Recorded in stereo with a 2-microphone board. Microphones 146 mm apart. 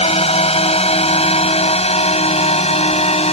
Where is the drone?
45° left (ahead or behind).